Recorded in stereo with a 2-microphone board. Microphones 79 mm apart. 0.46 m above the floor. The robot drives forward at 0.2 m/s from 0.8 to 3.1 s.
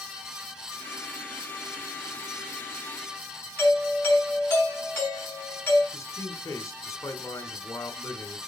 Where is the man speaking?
40° left (ahead or behind), 1.6 m.